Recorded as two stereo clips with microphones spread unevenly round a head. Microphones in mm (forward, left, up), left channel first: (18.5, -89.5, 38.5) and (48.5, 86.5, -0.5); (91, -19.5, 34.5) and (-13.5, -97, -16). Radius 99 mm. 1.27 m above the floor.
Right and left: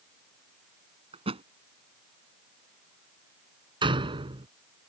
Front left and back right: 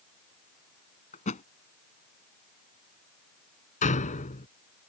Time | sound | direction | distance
1.1 | a thud | 20° left | ?
3.8 | a door slam | 15° left | ?